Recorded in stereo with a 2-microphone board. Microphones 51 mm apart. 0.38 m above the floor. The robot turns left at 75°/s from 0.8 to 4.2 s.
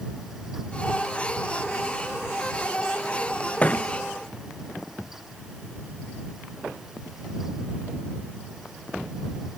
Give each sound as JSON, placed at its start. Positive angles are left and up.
{"t": 3.6, "sound": "a thud", "side_deg": 25}